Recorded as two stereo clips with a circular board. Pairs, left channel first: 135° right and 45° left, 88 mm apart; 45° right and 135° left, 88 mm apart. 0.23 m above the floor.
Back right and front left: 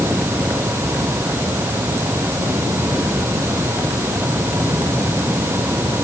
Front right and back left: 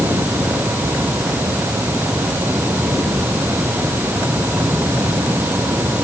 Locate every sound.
Only background noise.